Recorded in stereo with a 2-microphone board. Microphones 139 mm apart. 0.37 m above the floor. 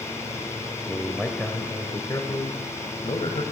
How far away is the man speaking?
About 1.3 m.